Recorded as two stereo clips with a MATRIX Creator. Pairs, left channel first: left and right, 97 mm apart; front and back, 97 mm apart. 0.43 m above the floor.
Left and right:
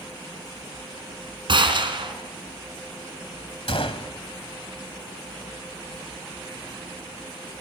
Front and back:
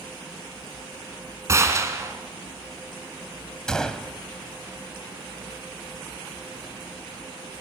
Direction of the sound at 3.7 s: 85° left.